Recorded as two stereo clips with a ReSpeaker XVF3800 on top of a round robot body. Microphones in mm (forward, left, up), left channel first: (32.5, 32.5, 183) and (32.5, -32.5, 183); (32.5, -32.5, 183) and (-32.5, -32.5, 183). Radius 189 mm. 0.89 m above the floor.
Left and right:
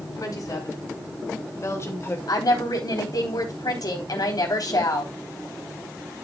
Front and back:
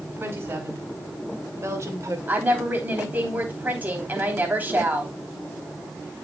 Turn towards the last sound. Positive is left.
turn(degrees=115)